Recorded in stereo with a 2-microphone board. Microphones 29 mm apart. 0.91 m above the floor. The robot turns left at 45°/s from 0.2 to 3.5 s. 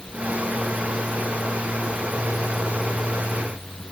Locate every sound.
Only background noise.